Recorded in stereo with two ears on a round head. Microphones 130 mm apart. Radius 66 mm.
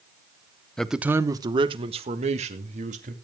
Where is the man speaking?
5° left (ahead or behind), 0.8 m; by 3.1 s 55° right (ahead or behind), 2.5 m.